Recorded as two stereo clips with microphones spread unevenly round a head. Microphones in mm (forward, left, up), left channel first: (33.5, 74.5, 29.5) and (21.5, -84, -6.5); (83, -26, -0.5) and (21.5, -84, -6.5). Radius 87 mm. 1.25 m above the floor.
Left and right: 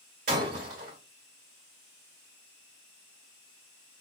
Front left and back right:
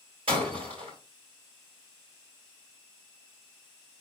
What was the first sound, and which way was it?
Breaking glass, 140° right.